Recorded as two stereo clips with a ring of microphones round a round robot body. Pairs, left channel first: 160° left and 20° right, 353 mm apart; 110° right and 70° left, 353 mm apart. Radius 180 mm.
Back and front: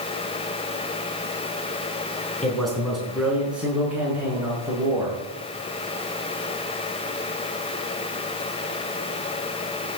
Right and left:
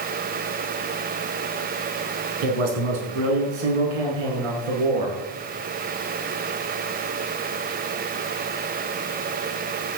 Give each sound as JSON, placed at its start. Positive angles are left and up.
{"t": 2.4, "sound": "a man speaking", "azimuth_deg": 70, "distance_m": 6.0}